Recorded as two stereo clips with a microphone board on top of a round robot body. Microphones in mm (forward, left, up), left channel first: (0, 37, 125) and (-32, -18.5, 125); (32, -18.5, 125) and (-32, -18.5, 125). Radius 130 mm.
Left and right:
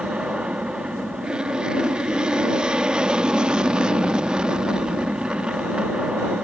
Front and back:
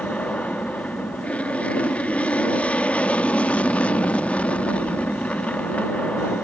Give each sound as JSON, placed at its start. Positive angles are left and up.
{"t": 0.0, "sound": "an aircraft", "azimuth_deg": -55}